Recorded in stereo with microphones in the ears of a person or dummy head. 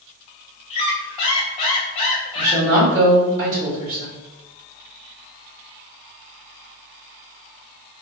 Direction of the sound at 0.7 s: 30° left (ahead or behind).